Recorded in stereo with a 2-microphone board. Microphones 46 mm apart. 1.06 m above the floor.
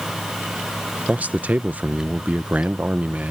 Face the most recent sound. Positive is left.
turn(degrees=-35)  # may be behind; listen again after turning